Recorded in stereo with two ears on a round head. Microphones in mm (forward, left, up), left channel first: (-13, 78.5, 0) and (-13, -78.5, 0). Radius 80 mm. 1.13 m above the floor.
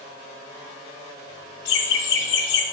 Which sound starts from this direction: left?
Laughter, at 1.6 s.